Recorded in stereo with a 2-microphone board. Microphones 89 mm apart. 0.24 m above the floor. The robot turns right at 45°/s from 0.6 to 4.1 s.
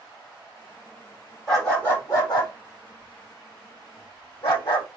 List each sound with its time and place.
1.5 s a dog barking: 5° left (ahead or behind), 3.5 m; by 4.9 s 55° left (ahead or behind), 3.5 m